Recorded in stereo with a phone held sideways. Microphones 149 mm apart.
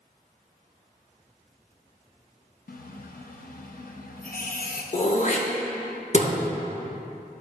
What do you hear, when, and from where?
2.7 s a running tap: 70° left (ahead or behind), 0.5 m
4.9 s throat clearing: 50° left (ahead or behind), 0.6 m